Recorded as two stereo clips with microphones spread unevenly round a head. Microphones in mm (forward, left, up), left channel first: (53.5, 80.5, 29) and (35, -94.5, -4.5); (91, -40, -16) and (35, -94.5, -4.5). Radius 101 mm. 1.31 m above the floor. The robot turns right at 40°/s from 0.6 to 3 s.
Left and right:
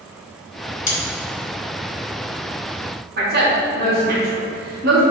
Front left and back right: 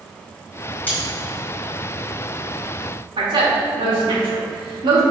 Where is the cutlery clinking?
120° left, 1.1 m; by 1.0 s 125° left, 1.1 m.